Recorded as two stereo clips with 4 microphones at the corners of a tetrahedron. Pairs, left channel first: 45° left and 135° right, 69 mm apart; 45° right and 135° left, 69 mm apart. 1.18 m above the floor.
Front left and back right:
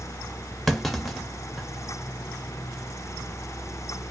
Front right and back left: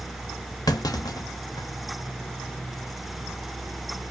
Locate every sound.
0.7 s a clunk: 40° right, 0.5 m